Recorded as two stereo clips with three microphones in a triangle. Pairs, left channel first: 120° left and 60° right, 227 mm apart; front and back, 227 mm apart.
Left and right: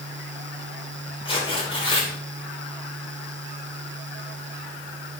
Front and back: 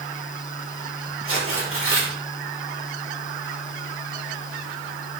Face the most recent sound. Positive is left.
turn(degrees=-175)